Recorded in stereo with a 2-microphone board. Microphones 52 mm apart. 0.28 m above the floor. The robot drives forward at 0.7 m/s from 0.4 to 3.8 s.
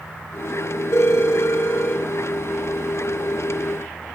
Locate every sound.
0.9 s a phone ringing: 70° left (ahead or behind), 3.5 m; by 2.0 s 60° left (ahead or behind), 4 m